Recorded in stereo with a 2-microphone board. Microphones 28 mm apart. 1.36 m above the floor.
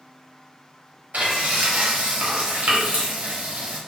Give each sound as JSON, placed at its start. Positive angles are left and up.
{"t": 1.1, "sound": "frying", "side_deg": -70, "distance_m": 0.8}